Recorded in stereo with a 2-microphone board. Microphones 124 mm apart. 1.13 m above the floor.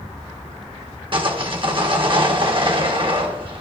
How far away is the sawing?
About 1.4 m.